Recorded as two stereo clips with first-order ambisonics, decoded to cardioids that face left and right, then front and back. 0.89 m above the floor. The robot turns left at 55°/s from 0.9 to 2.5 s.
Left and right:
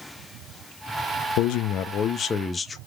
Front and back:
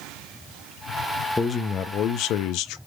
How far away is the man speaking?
About 0.6 m.